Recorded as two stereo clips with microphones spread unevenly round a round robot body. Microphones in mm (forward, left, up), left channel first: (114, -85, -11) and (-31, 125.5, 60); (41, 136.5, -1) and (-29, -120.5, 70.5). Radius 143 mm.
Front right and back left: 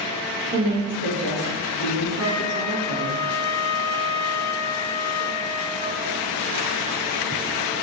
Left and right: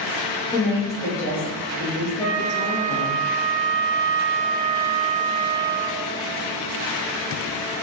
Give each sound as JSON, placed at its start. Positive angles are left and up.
{"t": 0.5, "sound": "a woman speaking", "azimuth_deg": 105, "distance_m": 1.2}
{"t": 2.2, "sound": "a flute", "azimuth_deg": -15, "distance_m": 1.4}